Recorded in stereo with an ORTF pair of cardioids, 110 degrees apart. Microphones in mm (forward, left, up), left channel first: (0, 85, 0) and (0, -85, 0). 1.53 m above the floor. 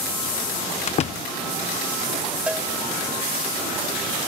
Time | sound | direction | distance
0.9 | a door slam | 45° left | 0.8 m
2.5 | a cowbell | 5° right | 2.5 m